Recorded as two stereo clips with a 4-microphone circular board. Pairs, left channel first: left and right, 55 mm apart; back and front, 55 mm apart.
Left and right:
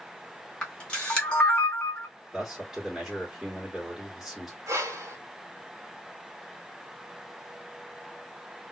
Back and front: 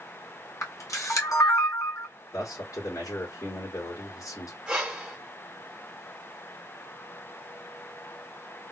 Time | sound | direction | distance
0.6 | a camera shutter | 160° left | 1.8 m
2.3 | a man speaking | straight behind | 2 m
4.7 | breathing | 80° right | 1.6 m